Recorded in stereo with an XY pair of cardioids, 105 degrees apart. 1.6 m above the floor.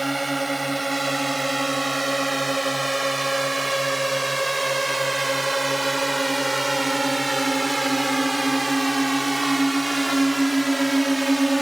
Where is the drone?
10° right.